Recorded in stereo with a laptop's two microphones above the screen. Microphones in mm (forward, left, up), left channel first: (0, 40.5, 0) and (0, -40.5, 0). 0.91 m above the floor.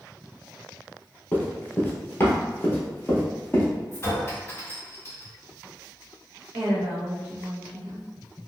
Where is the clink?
30° left (ahead or behind), 1.7 m.